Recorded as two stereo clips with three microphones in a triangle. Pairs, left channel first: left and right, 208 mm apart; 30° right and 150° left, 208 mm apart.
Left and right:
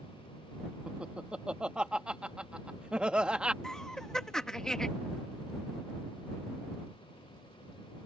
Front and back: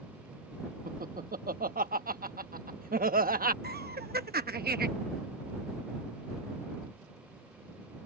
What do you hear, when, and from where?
0.9 s laughter: 175° right
3.6 s laughter: 175° left